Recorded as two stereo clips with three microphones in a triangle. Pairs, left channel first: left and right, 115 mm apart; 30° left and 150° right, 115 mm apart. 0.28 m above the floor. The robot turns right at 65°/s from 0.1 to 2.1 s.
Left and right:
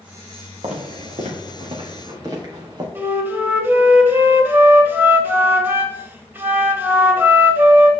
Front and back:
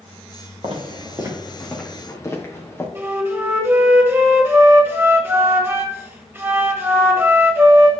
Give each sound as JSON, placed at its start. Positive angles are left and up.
{"t": 0.6, "sound": "footsteps", "azimuth_deg": -115, "distance_m": 3.0}
{"t": 3.0, "sound": "a flute", "azimuth_deg": -125, "distance_m": 1.3}